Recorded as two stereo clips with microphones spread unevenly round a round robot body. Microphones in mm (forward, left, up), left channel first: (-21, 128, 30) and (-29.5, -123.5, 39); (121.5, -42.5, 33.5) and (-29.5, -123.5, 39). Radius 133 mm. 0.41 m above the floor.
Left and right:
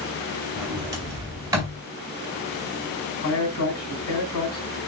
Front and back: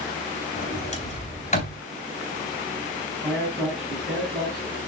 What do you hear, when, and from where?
0.6 s a sliding door: 15° right, 3 m
3.2 s a man speaking: 115° left, 3 m